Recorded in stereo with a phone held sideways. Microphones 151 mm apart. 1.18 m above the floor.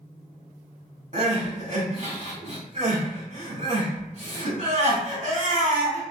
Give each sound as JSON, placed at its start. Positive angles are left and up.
{"t": 1.1, "sound": "crying", "side_deg": -50, "distance_m": 1.4}